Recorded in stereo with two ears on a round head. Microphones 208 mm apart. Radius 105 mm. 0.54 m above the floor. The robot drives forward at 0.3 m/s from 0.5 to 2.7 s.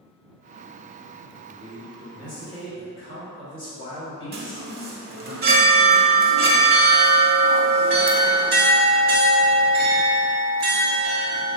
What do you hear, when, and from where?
1.5 s a man speaking: 25° left (ahead or behind), 1.6 m; by 5.3 s 20° left (ahead or behind), 1.9 m
4.3 s a chime: 45° right (ahead or behind), 0.6 m